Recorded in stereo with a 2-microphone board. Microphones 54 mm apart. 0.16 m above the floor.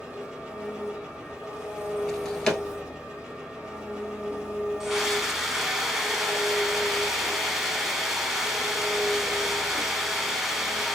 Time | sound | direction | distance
0.0 | an engine running | 15° right (ahead or behind) | 1.7 m
2.1 | a drawer | 10° left (ahead or behind) | 0.9 m
4.8 | a scream | 10° right (ahead or behind) | 1.1 m